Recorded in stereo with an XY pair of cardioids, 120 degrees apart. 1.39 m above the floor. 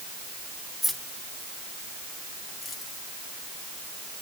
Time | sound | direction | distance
0.8 | keys jangling | 5° left | 2 m